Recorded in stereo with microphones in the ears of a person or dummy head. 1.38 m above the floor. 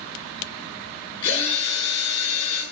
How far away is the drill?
About 7 m.